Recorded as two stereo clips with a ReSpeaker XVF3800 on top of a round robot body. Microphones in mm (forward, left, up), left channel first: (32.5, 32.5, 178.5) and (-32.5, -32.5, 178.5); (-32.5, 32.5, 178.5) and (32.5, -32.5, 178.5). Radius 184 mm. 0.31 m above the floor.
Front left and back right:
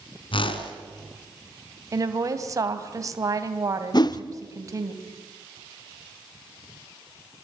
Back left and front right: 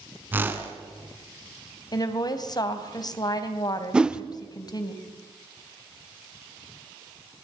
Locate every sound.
0.3 s a whoosh: 25° left, 2.5 m
1.9 s a woman speaking: 175° left, 3 m
3.9 s a whoosh: 35° left, 1.3 m